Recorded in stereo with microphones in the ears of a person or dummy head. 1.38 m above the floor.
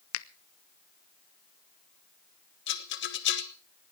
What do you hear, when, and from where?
0.1 s a finger snap: 65° left (ahead or behind), 0.6 m
2.7 s a rattle: 55° left (ahead or behind), 1.3 m